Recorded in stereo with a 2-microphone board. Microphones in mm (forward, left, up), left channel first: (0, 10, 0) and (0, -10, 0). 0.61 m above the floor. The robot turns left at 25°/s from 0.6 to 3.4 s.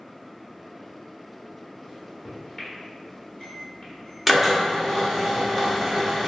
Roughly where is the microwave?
Centre.